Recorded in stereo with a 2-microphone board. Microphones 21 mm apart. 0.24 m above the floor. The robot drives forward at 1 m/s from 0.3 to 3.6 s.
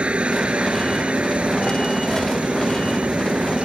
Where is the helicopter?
60° right (ahead or behind); by 3.6 s 65° right (ahead or behind).